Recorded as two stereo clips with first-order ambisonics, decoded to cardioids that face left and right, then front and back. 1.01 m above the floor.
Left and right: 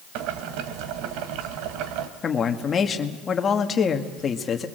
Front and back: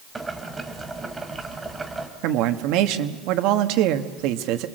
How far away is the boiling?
About 2.0 m.